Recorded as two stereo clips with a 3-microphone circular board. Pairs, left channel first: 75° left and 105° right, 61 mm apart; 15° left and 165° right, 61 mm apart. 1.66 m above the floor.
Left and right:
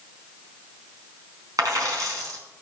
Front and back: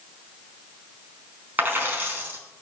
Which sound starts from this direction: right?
A dropped coin, at 1.6 s.